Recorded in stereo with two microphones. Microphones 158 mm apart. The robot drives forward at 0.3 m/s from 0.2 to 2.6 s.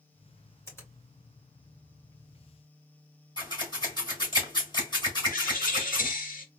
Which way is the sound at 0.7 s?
15° left (ahead or behind).